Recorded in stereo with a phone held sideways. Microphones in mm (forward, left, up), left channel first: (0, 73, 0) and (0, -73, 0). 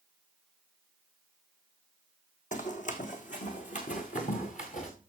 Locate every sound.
2.5 s running footsteps: 60° left (ahead or behind), 2.0 m